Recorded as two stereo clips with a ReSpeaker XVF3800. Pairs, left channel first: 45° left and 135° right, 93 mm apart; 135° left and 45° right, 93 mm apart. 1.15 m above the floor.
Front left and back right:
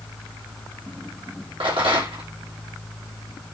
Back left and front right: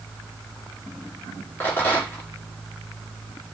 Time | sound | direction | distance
1.6 | a rattle | 155° right | 2 m